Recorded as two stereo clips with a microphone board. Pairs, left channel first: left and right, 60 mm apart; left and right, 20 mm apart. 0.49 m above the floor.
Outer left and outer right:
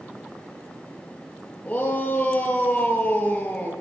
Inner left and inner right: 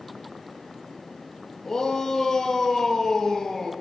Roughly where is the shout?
Centre.